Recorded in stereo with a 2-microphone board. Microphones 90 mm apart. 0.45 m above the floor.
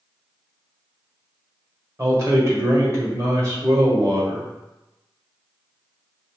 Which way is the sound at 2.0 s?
40° right (ahead or behind).